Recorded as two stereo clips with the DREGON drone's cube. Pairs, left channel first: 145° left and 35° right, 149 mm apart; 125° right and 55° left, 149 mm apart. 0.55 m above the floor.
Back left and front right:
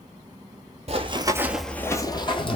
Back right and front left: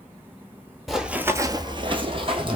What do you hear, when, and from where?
0.9 s running footsteps: 35° right, 0.7 m; by 2.6 s 100° left, 1.0 m